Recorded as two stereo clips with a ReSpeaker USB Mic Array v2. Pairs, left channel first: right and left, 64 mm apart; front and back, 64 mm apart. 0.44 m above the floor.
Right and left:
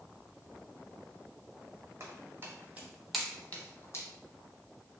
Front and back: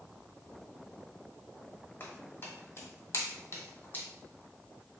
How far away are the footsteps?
About 1.0 m.